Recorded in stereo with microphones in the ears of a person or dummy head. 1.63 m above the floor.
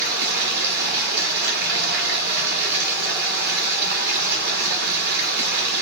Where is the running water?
60° right (ahead or behind), 1.2 m.